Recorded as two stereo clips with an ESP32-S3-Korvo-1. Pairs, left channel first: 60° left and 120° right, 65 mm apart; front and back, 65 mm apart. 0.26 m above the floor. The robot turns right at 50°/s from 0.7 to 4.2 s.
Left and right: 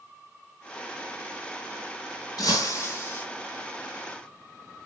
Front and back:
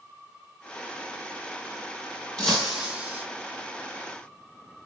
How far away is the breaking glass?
About 1.7 m.